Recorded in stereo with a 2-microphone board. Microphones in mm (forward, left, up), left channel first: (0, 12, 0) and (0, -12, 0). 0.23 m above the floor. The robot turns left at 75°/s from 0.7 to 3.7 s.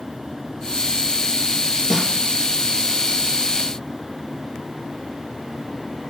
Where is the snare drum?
25° right (ahead or behind), 4 m; by 2.1 s 40° right (ahead or behind), 4 m.